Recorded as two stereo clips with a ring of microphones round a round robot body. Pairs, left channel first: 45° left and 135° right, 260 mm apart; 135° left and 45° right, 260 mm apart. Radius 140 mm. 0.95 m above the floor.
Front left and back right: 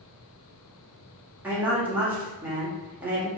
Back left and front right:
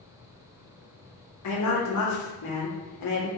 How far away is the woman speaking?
About 1.9 m.